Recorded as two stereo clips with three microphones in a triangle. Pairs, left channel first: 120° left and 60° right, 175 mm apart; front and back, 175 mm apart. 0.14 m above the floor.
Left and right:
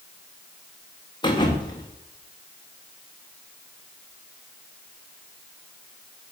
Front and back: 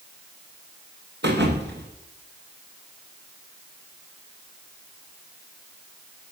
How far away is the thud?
About 4 m.